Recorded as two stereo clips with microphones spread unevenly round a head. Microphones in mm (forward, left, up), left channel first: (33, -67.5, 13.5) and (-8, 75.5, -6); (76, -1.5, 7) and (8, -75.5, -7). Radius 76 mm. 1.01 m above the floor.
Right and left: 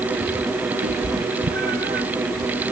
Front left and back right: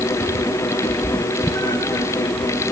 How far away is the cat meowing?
About 3 m.